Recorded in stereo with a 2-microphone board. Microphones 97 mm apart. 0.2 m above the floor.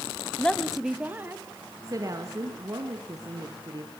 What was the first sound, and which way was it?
A woman speaking, 15° left (ahead or behind).